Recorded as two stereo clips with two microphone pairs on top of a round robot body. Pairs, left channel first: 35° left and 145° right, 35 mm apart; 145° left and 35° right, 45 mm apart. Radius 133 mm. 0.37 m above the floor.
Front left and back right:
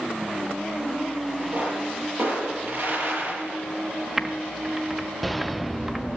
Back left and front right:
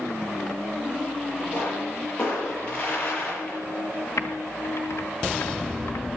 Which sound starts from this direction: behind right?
A pop, at 1.5 s.